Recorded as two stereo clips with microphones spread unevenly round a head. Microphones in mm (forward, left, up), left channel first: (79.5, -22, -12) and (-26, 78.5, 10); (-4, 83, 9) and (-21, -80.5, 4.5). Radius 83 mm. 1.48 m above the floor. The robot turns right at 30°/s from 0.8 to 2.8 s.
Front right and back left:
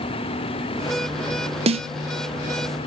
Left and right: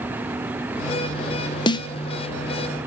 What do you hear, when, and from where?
1.7 s a snare drum: 135° left, 0.6 m; by 1.9 s 140° left, 0.6 m